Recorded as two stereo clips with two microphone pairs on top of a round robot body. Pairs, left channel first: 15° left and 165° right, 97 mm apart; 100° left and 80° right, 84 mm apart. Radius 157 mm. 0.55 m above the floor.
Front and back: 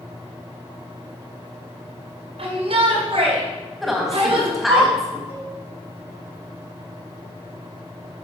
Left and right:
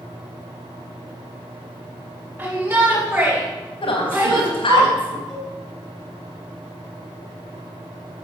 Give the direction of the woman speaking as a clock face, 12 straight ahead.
8 o'clock.